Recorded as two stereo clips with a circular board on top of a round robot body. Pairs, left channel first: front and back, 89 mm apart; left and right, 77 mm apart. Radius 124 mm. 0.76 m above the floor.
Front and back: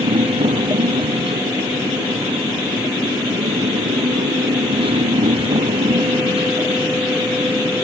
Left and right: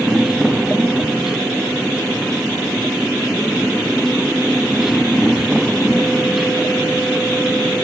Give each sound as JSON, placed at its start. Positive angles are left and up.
{"t": 0.0, "sound": "a motorcycle", "azimuth_deg": -175}